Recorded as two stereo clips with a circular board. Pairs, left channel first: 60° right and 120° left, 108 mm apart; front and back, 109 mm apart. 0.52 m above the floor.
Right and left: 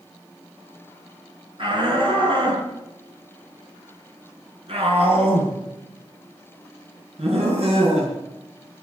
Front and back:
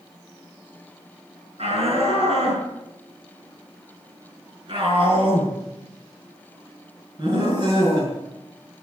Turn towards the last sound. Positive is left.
turn(degrees=130)